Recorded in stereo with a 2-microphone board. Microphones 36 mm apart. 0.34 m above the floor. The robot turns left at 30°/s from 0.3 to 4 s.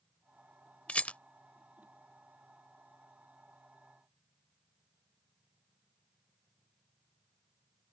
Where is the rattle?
40° left (ahead or behind).